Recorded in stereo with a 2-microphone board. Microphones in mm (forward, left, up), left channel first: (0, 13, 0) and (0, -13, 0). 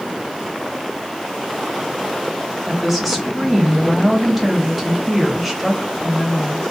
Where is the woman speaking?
5° right (ahead or behind), 0.8 m.